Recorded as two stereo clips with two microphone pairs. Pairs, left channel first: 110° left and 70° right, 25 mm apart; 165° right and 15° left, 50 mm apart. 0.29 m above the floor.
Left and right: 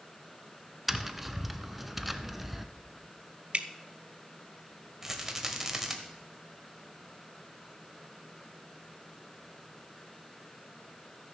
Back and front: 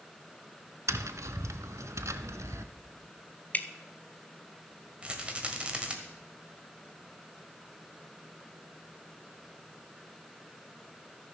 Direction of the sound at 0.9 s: 15° left.